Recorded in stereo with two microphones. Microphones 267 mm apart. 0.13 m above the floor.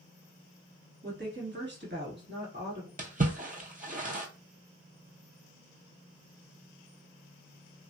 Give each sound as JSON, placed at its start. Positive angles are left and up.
{"t": 1.0, "sound": "a woman speaking", "side_deg": -40, "distance_m": 1.5}
{"t": 3.0, "sound": "a splash", "side_deg": -30, "distance_m": 0.8}